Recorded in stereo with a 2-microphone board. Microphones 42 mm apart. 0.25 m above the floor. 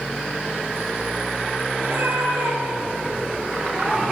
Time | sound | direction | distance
1.8 | a cat meowing | 70° right (ahead or behind) | 2.5 m